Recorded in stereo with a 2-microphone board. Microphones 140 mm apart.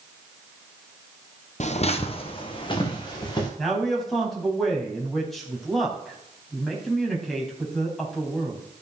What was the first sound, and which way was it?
Footsteps, 55° left (ahead or behind).